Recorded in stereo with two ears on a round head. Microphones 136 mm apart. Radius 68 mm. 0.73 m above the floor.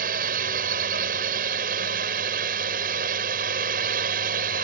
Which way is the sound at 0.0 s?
65° right (ahead or behind).